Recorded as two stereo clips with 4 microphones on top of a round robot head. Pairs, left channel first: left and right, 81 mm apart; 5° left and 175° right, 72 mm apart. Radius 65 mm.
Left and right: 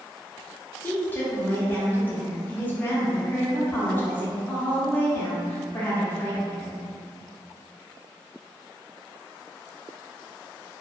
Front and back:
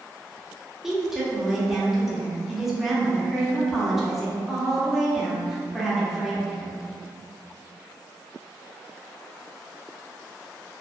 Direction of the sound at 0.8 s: 105° left.